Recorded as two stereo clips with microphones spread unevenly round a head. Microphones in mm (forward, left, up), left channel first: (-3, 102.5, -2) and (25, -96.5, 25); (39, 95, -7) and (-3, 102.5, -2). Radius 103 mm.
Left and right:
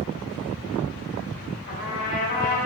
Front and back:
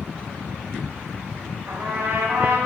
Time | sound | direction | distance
1.7 | a trumpet | 150° left | 2.5 m